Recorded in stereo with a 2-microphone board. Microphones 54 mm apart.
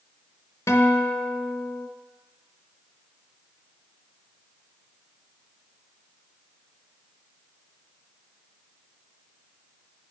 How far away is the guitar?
About 0.9 m.